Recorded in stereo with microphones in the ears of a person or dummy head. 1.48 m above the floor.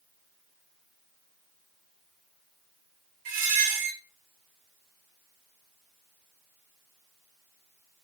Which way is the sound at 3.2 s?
55° right (ahead or behind).